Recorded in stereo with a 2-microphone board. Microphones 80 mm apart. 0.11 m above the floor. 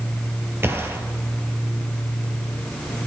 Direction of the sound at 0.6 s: 30° right (ahead or behind).